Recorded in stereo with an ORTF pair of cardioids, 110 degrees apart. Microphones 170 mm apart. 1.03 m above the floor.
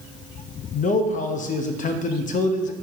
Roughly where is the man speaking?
Ahead left.